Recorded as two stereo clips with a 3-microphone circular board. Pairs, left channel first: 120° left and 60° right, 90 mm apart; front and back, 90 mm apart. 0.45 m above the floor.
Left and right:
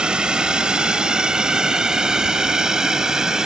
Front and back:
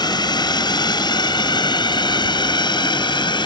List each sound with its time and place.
0.0 s a drone: 20° left; by 3.5 s 25° left